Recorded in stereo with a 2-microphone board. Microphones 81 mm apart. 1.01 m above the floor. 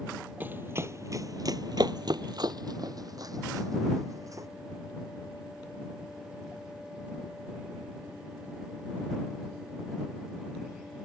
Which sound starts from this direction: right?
Running footsteps, at 0.4 s.